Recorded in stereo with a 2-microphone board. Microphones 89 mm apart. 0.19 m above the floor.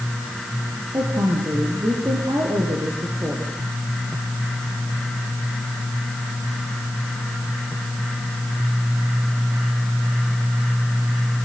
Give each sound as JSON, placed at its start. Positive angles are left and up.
{"t": 0.9, "sound": "a woman speaking", "side_deg": -40, "distance_m": 5.5}